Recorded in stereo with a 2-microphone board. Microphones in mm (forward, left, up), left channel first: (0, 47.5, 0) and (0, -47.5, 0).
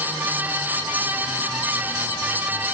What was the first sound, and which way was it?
Only background noise.